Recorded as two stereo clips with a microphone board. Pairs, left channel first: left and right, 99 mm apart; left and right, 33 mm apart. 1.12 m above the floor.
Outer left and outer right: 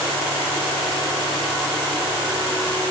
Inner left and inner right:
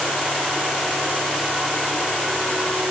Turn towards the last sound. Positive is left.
No sound to turn to.